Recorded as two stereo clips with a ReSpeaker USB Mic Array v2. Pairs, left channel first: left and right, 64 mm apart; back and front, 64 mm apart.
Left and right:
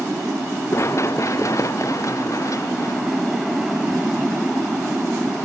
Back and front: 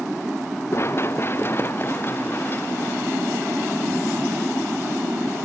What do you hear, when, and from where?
0.7 s running footsteps: 135° left; by 4.5 s 120° left